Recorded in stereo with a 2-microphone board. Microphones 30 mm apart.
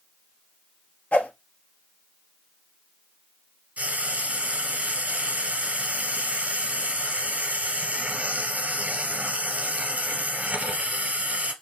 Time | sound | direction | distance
1.1 | a whoosh | 70° left (ahead or behind) | 0.8 m
3.8 | frying | 70° right (ahead or behind) | 2.0 m